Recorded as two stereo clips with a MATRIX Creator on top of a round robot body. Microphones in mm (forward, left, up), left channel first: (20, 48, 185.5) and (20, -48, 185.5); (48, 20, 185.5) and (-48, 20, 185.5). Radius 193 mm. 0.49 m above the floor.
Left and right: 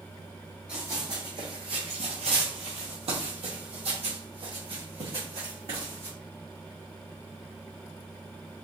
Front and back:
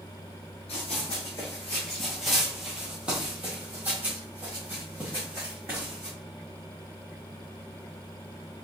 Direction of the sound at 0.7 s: 15° right.